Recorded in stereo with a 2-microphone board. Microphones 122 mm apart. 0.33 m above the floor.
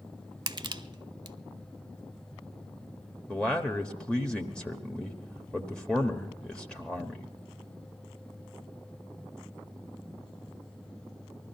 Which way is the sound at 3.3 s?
10° left (ahead or behind).